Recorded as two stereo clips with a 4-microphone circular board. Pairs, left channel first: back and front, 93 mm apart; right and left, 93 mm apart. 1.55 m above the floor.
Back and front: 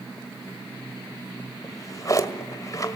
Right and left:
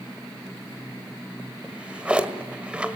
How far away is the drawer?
About 1.6 m.